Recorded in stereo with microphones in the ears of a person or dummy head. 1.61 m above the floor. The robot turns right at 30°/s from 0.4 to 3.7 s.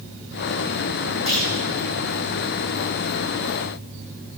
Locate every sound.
1.3 s a clunk: 30° right (ahead or behind), 8.5 m; by 1.5 s 35° right (ahead or behind), 8.5 m